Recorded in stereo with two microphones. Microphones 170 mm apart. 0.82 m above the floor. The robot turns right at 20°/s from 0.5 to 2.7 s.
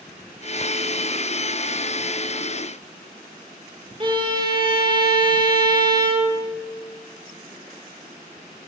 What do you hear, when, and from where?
4.0 s a violin: 30° right (ahead or behind), 1.0 m